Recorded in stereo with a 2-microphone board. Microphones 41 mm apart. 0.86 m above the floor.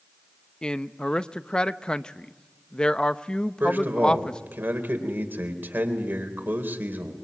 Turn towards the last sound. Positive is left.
turn(degrees=-60)  # may be behind; listen again after turning